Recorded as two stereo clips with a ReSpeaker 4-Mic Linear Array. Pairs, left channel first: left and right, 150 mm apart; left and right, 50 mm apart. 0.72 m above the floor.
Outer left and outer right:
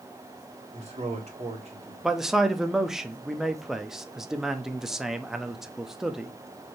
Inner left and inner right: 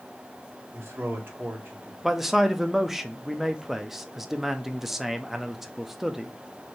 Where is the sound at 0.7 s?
45° right (ahead or behind), 1.9 m.